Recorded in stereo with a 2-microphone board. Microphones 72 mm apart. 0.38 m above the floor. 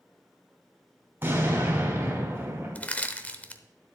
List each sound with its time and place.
1.2 s an explosion: 30° right (ahead or behind), 3.5 m
2.8 s crushing: 20° left (ahead or behind), 0.7 m